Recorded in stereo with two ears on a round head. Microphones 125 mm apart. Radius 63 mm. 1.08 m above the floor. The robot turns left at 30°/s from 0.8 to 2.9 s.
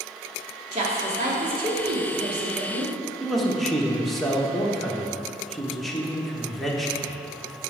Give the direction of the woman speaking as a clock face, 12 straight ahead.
1 o'clock.